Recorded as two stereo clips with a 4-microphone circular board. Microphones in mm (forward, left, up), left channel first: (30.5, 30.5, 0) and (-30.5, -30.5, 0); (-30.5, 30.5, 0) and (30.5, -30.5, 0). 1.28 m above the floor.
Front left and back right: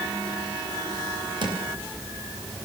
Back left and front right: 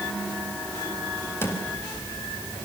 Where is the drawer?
160° right, 4.5 m.